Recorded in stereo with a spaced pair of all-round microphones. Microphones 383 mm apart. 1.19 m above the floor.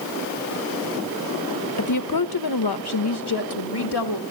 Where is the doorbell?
No doorbell in this recording.